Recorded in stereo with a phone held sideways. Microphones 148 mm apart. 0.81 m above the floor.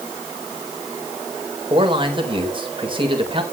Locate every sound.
1.7 s a man speaking: 35° right (ahead or behind), 4 m